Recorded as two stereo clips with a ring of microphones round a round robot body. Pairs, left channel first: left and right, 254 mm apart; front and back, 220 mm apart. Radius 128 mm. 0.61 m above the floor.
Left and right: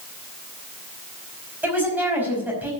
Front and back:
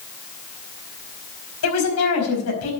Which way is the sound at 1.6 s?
5° right.